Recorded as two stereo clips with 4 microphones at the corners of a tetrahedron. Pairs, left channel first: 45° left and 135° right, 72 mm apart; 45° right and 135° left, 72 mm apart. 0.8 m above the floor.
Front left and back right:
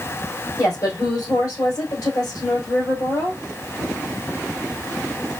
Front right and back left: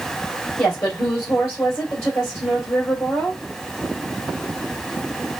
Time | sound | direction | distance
0.6 | a woman speaking | 5° left | 3.5 m